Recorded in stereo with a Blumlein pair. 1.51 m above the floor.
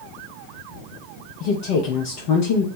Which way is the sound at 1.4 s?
45° left.